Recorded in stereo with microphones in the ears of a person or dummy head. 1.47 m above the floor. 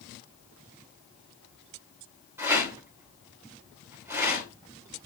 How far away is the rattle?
About 3 m.